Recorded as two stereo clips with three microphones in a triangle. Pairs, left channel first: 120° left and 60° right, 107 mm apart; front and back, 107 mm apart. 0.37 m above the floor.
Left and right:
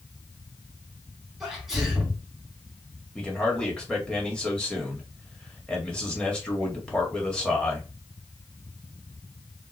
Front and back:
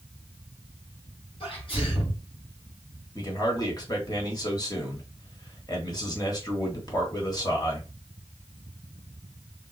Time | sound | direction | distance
1.4 | a sneeze | 25° left | 3 m
3.1 | a man speaking | 40° left | 1.8 m